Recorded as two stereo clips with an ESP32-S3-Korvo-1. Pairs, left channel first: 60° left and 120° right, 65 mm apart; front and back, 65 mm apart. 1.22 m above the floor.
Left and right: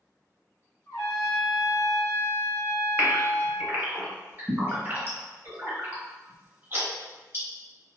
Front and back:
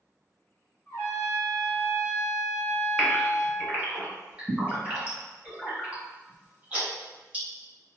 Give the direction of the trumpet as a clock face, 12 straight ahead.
11 o'clock.